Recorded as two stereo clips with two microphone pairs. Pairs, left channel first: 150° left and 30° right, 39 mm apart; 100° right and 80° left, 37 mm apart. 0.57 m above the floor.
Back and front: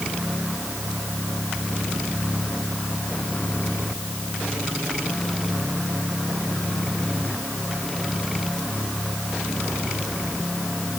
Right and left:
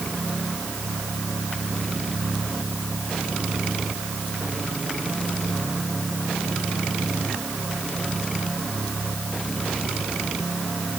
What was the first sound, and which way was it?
Only background noise.